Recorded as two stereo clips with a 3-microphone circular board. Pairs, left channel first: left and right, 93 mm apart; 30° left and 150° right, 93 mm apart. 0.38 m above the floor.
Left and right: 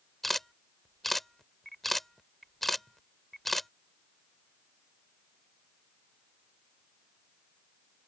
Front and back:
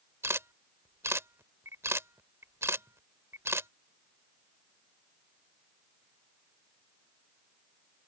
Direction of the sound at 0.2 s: 175° left.